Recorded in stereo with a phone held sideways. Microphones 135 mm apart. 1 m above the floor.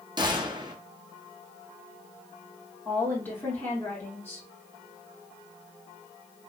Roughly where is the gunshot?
Right.